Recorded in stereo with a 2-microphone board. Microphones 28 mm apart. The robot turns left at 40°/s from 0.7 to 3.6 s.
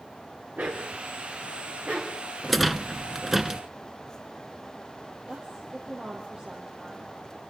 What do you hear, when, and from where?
0.6 s a dog barking: 85° right, 4.5 m; by 2.2 s 30° right (ahead or behind), 4.5 m
2.4 s a rattle: centre (ahead or behind), 0.9 m; by 3.6 s 15° right (ahead or behind), 0.9 m
5.3 s a woman speaking: 35° right (ahead or behind), 4.5 m